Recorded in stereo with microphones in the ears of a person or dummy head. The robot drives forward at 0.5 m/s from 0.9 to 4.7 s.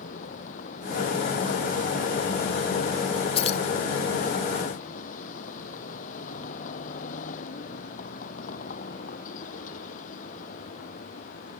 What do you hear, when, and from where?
0.0 s a vehicle: 50° left (ahead or behind)
3.4 s keys jangling: 40° left (ahead or behind)